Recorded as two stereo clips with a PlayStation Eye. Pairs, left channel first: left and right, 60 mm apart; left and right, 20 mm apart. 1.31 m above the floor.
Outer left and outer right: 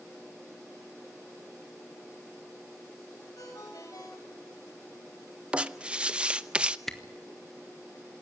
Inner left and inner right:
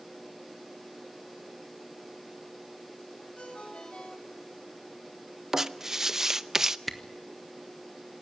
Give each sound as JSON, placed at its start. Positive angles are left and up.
{"t": 3.4, "sound": "a ringtone", "side_deg": 85, "distance_m": 4.5}
{"t": 5.5, "sound": "writing", "side_deg": -20, "distance_m": 0.6}
{"t": 6.9, "sound": "a camera shutter", "side_deg": 5, "distance_m": 1.4}